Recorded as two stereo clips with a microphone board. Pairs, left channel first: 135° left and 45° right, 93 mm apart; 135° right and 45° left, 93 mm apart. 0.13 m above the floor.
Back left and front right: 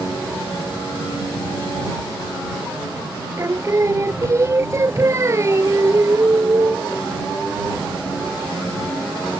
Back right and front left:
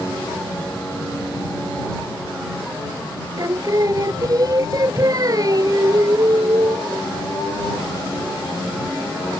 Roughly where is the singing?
Ahead.